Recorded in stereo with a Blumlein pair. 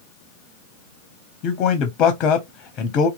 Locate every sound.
1.4 s a man speaking: 35° left, 0.7 m